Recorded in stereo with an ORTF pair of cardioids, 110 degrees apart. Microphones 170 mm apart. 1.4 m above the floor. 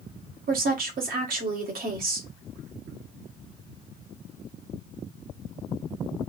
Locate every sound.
0.5 s a woman speaking: 60° right, 1.7 m